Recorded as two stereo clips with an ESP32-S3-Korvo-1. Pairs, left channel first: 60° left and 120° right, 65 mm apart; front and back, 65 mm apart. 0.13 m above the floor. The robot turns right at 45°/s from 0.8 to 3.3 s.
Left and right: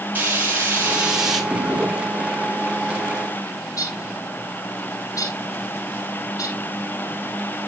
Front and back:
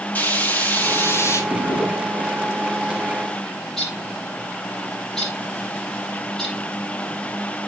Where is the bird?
85° left, 3.5 m.